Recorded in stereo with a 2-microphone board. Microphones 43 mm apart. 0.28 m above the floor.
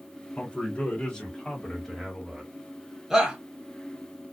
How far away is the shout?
About 1.2 m.